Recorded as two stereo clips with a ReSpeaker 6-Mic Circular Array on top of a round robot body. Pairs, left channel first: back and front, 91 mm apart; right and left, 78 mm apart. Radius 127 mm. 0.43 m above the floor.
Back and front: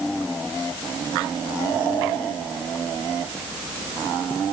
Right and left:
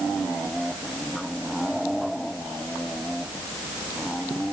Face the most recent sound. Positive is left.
No sound to turn to.